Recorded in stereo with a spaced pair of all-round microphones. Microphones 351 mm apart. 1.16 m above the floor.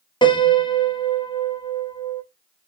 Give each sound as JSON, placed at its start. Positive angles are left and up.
{"t": 0.2, "sound": "a piano", "side_deg": 15, "distance_m": 0.6}